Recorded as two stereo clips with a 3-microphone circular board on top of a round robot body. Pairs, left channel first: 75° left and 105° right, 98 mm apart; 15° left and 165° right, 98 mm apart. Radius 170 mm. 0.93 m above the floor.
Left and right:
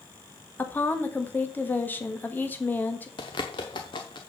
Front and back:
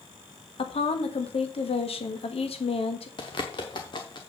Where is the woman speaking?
5° left, 1.6 m.